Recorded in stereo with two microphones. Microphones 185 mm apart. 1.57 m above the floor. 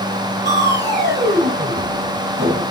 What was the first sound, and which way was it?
Crushing, 70° right (ahead or behind).